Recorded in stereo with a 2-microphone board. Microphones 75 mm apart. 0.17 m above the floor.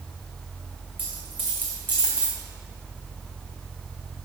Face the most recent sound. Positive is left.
turn(degrees=25)  # may be behind; listen again after turning